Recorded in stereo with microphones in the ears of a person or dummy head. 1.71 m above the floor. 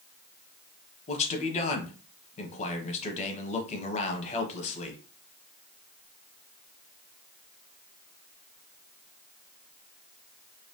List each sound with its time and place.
1.1 s a man speaking: 40° left (ahead or behind), 1.4 m